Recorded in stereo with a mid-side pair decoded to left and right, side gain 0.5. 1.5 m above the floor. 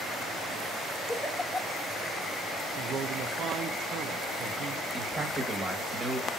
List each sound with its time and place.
1.1 s a giggle: 10° left, 1.5 m
2.8 s a man speaking: 55° right, 1.0 m
4.9 s a man speaking: 15° right, 1.8 m